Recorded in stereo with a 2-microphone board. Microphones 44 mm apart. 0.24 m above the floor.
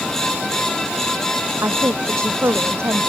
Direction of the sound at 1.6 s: 65° right (ahead or behind).